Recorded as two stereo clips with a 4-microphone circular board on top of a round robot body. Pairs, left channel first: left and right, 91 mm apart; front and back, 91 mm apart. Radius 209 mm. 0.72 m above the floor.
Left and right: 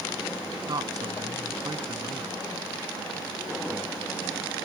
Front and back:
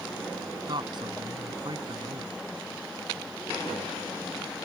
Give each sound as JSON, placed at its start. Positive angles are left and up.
{"t": 0.7, "sound": "a man speaking", "azimuth_deg": -135}